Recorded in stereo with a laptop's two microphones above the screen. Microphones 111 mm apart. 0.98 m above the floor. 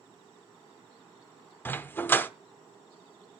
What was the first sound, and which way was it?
A dog barking, 20° left (ahead or behind).